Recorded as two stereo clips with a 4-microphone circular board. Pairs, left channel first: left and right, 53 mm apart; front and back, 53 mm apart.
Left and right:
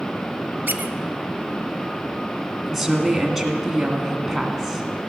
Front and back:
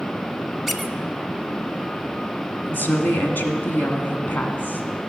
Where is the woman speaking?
5° right, 1.4 m.